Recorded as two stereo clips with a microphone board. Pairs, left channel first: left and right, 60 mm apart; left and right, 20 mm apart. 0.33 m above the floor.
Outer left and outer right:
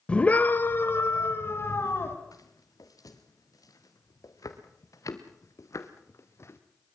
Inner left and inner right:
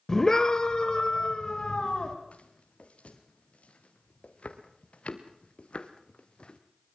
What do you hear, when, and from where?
0.1 s a scream: 15° left (ahead or behind), 1.3 m; by 2.1 s 40° left (ahead or behind), 3 m
2.3 s footsteps: 85° left, 3.5 m; by 6.6 s 50° left (ahead or behind), 2.5 m